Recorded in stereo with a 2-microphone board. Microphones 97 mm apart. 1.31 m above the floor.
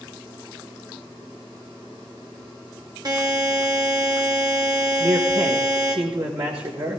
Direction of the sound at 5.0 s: 80° right.